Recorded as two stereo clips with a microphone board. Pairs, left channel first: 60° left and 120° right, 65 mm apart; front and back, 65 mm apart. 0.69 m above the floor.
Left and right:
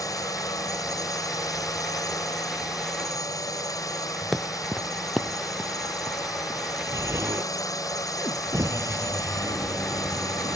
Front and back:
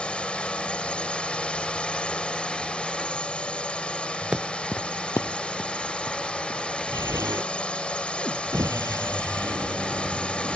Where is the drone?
70° left.